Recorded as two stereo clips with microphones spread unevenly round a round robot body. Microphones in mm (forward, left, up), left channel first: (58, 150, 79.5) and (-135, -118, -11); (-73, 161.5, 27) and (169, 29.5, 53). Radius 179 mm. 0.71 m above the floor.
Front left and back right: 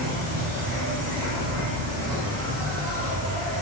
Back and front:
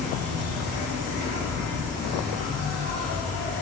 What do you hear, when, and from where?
0.0 s an insect: 95° right, 7.5 m